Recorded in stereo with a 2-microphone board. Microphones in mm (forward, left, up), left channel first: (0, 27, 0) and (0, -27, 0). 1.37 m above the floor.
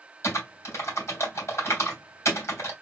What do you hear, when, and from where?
0.2 s typing on a keyboard: 60° left (ahead or behind), 2.5 m